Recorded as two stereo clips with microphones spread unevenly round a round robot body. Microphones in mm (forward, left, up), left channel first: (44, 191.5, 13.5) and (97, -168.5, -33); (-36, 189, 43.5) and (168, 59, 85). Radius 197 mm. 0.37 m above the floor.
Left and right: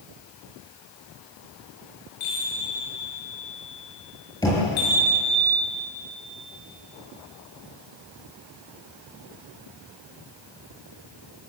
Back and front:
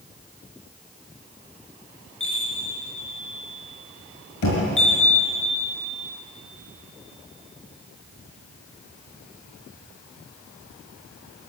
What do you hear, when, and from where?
2.2 s a chime: 115° left, 8.5 m
4.4 s knocking: straight behind, 6.5 m